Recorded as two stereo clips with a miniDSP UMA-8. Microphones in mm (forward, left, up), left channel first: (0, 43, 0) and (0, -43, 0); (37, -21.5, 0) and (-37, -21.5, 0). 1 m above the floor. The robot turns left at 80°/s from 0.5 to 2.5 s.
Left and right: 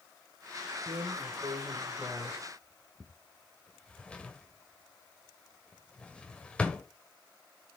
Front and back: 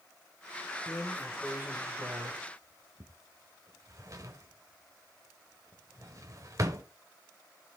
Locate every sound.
0.9 s a drawer: 65° right, 1.0 m; by 6.8 s 165° left, 1.0 m